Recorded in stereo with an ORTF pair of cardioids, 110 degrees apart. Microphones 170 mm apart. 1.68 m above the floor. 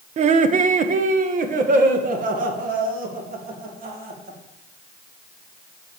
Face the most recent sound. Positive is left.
turn(degrees=-55)